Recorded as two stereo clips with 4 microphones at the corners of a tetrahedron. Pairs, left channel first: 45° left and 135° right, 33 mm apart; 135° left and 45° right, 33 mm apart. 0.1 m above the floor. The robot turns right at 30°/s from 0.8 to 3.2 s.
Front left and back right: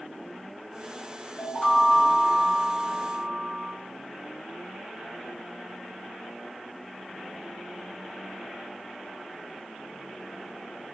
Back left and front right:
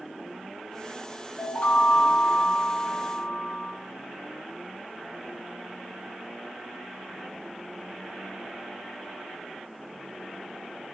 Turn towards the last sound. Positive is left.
turn(degrees=150)